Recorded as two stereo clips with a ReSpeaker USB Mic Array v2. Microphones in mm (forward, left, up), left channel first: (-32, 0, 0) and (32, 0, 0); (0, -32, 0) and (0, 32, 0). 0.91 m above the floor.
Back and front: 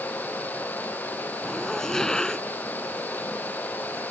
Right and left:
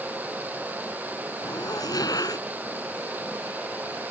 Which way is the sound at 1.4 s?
100° right.